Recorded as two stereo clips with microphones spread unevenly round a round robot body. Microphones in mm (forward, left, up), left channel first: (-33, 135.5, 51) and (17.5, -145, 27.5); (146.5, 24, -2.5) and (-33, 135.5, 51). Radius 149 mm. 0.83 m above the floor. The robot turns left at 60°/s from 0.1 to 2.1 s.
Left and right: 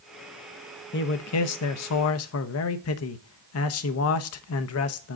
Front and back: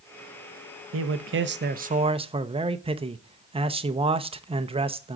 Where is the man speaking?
145° left, 0.7 m; by 5.2 s 75° left, 0.7 m.